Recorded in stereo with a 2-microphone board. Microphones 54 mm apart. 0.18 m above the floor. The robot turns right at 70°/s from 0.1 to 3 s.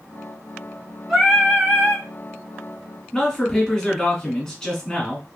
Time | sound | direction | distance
1.1 | singing | 170° right | 1.3 m
3.1 | a man speaking | 10° left (ahead or behind) | 1.6 m